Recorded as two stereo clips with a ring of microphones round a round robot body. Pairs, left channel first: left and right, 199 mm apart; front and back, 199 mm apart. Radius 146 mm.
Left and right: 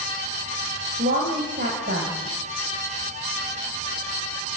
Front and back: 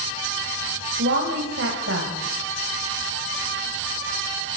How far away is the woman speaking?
About 2.5 m.